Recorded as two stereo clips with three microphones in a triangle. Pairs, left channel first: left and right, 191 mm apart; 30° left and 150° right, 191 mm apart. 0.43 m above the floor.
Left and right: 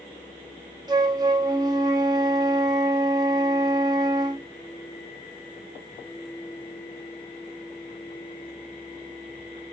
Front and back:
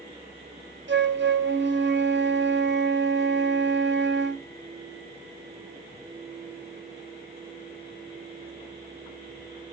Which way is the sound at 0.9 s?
160° right.